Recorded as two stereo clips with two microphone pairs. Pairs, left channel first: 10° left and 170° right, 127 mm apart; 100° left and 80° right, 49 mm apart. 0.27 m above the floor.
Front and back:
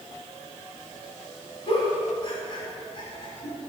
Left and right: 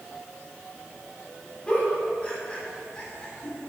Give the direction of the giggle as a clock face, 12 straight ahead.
11 o'clock.